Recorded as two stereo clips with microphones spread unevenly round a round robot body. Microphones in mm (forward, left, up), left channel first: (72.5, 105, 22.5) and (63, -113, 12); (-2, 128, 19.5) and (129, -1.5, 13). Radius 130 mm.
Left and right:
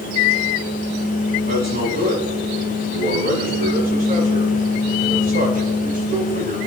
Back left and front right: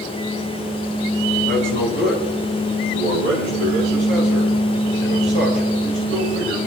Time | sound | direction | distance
1.5 | a man speaking | 50° right | 8.5 m